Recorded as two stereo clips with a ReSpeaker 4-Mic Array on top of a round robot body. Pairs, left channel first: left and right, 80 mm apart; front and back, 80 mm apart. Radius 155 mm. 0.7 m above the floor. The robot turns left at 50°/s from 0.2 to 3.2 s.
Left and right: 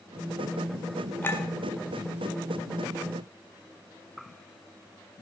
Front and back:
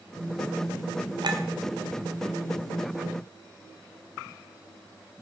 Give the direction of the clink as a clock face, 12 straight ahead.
7 o'clock.